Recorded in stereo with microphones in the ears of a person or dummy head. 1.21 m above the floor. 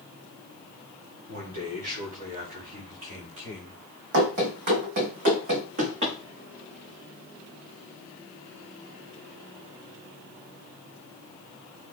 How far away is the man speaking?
About 3.5 m.